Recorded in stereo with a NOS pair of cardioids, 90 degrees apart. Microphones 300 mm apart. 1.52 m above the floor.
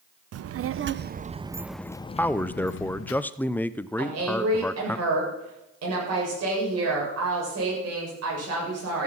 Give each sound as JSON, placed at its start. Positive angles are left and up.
{"t": 0.3, "sound": "a child speaking", "azimuth_deg": -60, "distance_m": 0.9}
{"t": 2.2, "sound": "a man speaking", "azimuth_deg": 5, "distance_m": 0.6}
{"t": 4.0, "sound": "a woman speaking", "azimuth_deg": -55, "distance_m": 7.5}